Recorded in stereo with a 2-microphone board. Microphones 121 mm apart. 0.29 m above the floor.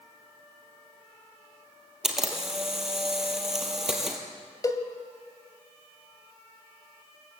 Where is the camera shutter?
5° right (ahead or behind), 3.5 m.